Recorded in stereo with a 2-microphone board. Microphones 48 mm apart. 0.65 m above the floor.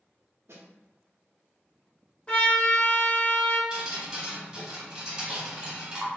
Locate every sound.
0.5 s a snare drum: 75° right (ahead or behind), 0.5 m
2.3 s a trumpet: 25° left (ahead or behind), 0.7 m
3.7 s dripping: 20° right (ahead or behind), 1.2 m